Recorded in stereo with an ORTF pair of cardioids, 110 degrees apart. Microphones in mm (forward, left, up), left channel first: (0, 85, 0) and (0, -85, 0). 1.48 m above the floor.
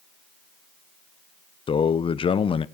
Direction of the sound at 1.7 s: 35° left.